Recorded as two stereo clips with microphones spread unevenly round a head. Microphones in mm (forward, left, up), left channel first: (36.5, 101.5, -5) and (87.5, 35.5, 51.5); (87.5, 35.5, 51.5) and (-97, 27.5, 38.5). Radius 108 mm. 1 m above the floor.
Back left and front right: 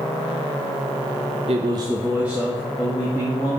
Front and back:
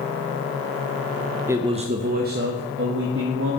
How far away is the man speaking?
About 0.6 m.